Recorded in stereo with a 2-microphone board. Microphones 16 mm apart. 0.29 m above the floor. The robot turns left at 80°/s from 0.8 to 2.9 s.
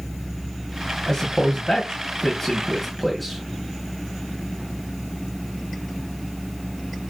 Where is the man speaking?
25° left (ahead or behind), 2 m; by 3.4 s centre (ahead or behind), 2 m.